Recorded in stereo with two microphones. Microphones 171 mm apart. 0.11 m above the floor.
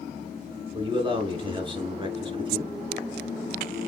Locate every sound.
0.7 s a man speaking: 30° right (ahead or behind), 1.3 m